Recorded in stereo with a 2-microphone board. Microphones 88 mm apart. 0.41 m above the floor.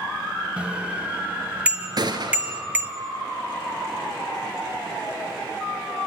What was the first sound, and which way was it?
A bicycle bell, 10° right (ahead or behind).